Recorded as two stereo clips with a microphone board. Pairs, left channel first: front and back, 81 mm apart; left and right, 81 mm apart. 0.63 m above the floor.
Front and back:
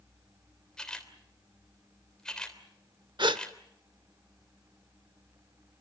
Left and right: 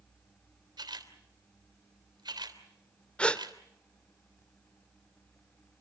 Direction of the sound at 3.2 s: 165° left.